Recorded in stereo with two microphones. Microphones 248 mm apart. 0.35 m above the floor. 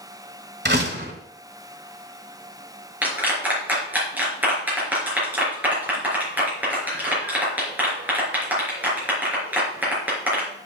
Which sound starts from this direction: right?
A door slam, at 0.7 s.